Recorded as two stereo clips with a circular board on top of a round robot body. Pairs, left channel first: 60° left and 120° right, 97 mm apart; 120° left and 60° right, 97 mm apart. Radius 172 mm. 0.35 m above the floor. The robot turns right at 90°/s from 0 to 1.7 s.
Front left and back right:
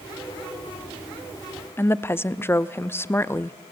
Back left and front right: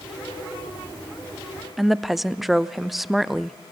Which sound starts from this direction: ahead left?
A woman speaking, at 1.8 s.